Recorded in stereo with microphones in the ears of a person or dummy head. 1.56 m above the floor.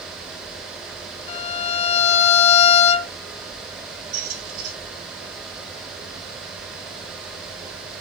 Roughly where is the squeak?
Right.